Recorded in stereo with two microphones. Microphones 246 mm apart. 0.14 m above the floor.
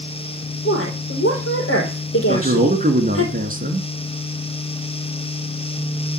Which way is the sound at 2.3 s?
35° right (ahead or behind).